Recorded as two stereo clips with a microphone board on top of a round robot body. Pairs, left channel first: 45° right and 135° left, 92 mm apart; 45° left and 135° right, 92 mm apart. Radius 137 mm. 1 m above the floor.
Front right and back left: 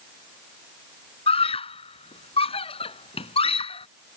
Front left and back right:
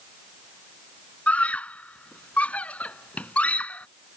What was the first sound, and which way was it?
A scream, 30° right.